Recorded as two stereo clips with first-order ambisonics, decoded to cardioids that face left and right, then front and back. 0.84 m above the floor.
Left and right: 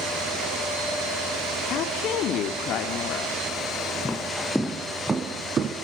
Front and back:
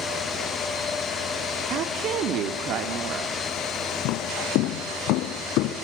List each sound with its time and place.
1.7 s a woman speaking: 135° left, 1.5 m
4.0 s footsteps: 15° left, 2.0 m; by 5.7 s 30° right, 1.8 m